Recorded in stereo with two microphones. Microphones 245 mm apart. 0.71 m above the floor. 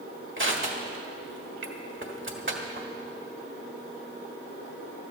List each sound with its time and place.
0.4 s crushing: 50° right (ahead or behind), 1.5 m